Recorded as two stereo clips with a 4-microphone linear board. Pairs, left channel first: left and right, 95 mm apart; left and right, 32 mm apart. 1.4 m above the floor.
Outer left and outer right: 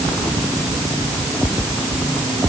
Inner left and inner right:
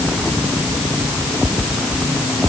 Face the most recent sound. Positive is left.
No sound to turn to.